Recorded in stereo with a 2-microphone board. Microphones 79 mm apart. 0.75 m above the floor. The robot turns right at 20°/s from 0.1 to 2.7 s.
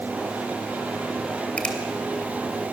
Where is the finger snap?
15° left (ahead or behind), 3 m; by 1.8 s 10° left (ahead or behind), 3 m.